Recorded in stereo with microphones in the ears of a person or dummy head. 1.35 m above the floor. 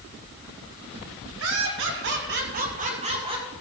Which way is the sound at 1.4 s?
70° right (ahead or behind).